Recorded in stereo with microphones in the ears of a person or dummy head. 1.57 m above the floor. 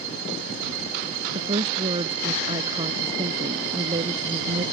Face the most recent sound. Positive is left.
turn(degrees=-30)  # may be behind; listen again after turning